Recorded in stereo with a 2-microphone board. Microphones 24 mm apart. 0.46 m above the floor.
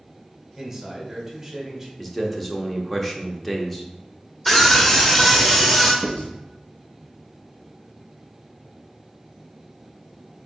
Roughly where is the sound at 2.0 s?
Centre.